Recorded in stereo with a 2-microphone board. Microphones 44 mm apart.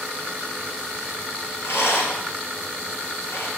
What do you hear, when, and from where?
1.6 s a rattle: 65° left (ahead or behind), 1.6 m